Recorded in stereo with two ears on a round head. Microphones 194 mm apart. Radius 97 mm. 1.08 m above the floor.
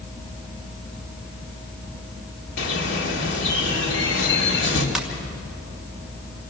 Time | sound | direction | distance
2.6 | a bird | 65° left (ahead or behind) | 2.5 m
5.0 | a ringtone | centre (ahead or behind) | 2.5 m